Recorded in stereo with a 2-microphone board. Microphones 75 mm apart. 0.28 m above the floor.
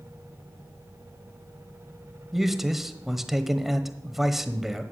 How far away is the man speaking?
About 1.0 m.